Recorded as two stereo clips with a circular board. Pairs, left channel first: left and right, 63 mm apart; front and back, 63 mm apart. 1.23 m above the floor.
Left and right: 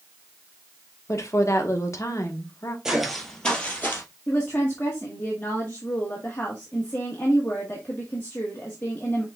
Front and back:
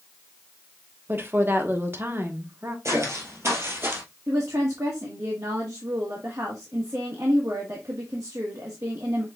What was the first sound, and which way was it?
A woman speaking, 125° left.